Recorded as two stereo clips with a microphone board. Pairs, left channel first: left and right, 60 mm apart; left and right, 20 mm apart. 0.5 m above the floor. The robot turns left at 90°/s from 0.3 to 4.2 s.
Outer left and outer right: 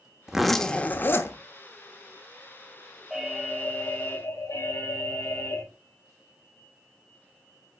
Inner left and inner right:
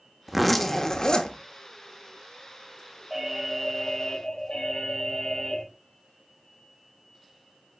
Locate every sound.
0.3 s a zipper: 170° right, 1.0 m; by 1.4 s 95° left, 1.0 m
3.1 s an alarm: 165° right, 3.5 m; by 5.6 s 95° left, 3.5 m